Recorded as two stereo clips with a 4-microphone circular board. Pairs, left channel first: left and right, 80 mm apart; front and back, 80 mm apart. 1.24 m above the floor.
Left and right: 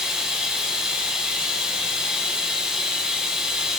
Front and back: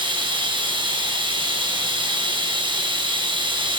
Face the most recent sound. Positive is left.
turn(degrees=-170)